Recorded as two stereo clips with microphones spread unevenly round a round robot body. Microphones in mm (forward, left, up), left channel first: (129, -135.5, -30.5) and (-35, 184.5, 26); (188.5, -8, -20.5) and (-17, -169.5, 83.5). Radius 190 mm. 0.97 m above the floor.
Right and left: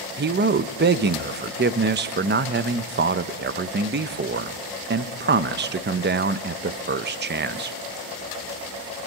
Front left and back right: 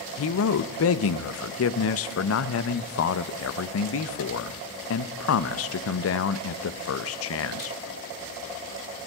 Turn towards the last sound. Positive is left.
turn(degrees=50)